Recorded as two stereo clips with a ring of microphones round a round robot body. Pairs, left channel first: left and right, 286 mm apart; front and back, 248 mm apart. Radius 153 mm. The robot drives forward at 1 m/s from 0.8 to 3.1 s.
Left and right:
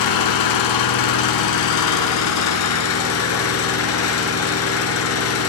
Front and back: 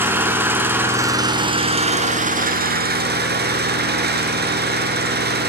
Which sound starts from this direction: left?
An engine running, at 0.0 s.